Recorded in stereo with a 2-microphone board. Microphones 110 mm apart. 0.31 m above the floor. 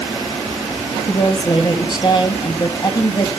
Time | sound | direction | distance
1.1 | a woman speaking | 40° left (ahead or behind) | 2.5 m